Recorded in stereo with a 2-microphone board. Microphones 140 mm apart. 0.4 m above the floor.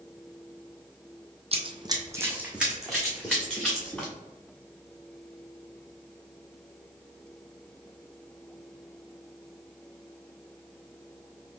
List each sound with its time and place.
1.5 s running footsteps: 50° right (ahead or behind), 0.7 m; by 4.1 s 10° left (ahead or behind), 2.5 m